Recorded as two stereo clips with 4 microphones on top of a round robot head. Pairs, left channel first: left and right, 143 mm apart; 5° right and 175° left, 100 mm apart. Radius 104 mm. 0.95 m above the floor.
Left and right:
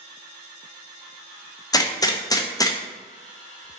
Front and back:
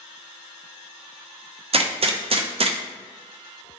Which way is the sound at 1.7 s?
155° left.